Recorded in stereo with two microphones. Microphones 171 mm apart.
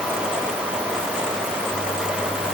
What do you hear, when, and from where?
Only background noise.